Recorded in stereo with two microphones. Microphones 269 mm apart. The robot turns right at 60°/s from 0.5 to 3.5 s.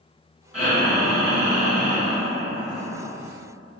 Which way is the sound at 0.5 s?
Centre (ahead or behind).